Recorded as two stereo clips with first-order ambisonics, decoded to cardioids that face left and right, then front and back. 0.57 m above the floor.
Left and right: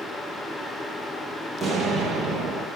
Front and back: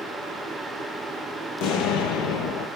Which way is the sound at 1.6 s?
Straight ahead.